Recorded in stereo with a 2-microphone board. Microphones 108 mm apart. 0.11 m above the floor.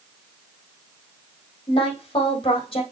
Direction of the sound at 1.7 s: 55° left (ahead or behind).